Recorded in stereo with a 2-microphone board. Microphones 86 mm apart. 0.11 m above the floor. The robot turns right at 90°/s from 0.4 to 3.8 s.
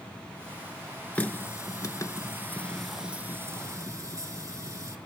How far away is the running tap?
About 0.9 m.